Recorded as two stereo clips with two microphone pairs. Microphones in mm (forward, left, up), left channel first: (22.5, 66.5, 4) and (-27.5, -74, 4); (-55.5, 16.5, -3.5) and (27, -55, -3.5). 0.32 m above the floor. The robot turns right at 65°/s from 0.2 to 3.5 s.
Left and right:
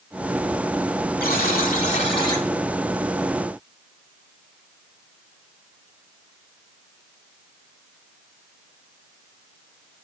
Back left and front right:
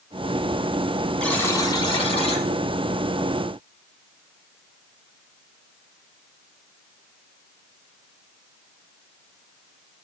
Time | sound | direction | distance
1.2 | a buzzer | 60° left | 1.0 m